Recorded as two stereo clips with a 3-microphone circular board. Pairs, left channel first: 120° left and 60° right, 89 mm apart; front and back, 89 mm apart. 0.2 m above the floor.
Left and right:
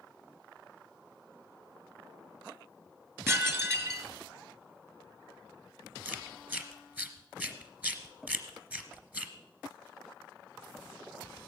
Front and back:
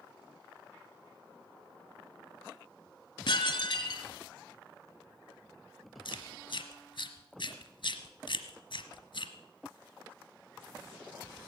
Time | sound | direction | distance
3.3 | dishes clattering | straight ahead | 1.6 m
6.0 | chewing | 15° left | 1.2 m